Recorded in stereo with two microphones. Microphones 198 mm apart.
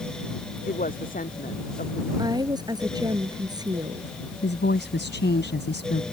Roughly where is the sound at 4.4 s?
Left.